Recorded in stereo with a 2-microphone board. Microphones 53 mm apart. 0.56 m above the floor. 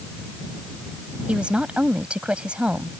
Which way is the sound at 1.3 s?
20° right (ahead or behind).